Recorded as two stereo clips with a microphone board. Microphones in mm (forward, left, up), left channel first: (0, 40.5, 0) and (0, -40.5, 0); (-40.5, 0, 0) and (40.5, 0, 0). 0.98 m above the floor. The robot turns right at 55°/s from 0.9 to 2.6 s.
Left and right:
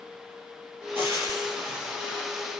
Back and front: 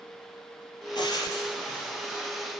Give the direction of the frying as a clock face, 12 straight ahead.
5 o'clock.